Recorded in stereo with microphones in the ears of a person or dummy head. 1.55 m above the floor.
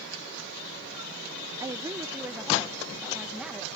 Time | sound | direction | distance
1.6 | a woman speaking | 20° right (ahead or behind) | ?